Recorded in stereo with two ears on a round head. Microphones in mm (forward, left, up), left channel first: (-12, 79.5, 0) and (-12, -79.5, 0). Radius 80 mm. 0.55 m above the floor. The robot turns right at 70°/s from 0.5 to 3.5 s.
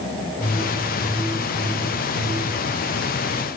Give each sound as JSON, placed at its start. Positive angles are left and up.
{"t": 0.4, "sound": "a whoosh", "azimuth_deg": 135, "distance_m": 6.5}